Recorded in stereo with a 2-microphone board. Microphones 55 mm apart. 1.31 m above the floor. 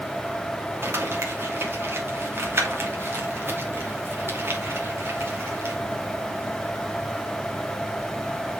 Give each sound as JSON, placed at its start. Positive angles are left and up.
{"t": 0.8, "sound": "crumpling", "side_deg": -45, "distance_m": 2.5}